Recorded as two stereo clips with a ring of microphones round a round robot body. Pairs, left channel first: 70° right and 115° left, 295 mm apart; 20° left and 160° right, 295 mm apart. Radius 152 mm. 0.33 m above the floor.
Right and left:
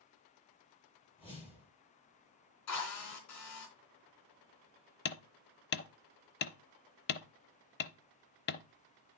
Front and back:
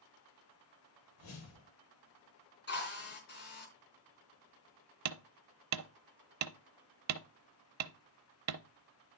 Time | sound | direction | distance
1.2 | a whoosh | 5° left | 3 m
2.7 | a drill | 35° right | 3.5 m
5.0 | hammering | 125° right | 0.7 m